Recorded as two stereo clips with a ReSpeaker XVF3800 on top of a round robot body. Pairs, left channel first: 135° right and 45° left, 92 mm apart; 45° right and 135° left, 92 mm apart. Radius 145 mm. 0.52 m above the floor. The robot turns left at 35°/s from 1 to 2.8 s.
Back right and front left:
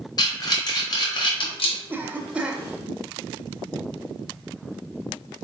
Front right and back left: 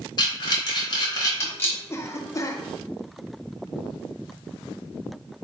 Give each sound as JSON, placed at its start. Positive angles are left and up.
{"t": 0.2, "sound": "breathing", "azimuth_deg": -90, "distance_m": 1.0}
{"t": 1.9, "sound": "a cough", "azimuth_deg": -5, "distance_m": 0.9}